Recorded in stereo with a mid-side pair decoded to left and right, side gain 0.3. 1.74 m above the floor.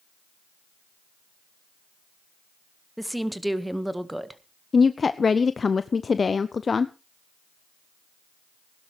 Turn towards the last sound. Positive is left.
turn(degrees=50)